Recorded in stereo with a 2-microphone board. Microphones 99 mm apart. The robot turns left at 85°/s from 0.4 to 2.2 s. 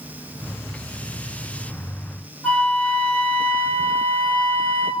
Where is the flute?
15° left (ahead or behind), 0.7 m.